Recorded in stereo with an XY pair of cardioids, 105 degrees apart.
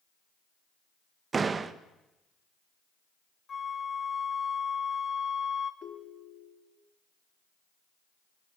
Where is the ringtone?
65° left, 2.5 m.